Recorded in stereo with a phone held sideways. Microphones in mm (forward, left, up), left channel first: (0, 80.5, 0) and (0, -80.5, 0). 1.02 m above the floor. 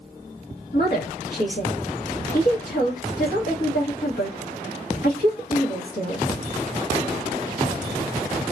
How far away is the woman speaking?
About 1.1 m.